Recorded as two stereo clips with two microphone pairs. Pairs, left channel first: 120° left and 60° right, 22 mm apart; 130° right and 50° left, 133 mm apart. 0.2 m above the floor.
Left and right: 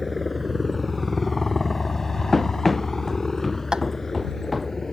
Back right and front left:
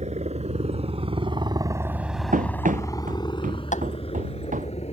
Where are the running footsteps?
40° left; by 4.7 s 35° left.